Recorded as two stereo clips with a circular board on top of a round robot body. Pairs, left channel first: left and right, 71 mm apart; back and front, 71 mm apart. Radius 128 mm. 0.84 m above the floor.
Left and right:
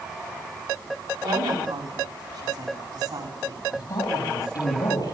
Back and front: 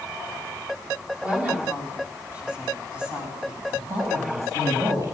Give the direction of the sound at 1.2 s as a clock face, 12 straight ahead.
2 o'clock.